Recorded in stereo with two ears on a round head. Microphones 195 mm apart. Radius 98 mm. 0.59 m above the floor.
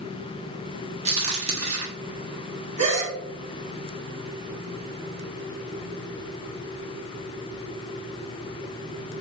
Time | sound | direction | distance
1.1 | a crack | 30° right (ahead or behind) | 0.9 m
2.8 | a gasp | 35° right (ahead or behind) | 1.0 m